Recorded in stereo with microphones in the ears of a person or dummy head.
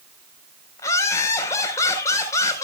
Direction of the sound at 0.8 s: 15° left (ahead or behind).